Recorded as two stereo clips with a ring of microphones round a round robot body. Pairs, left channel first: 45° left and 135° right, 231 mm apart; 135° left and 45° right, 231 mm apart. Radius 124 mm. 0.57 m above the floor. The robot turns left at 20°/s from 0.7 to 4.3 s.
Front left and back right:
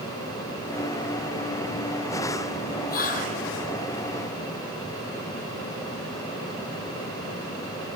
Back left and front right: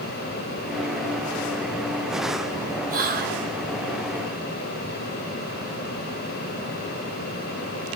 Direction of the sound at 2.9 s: Straight ahead.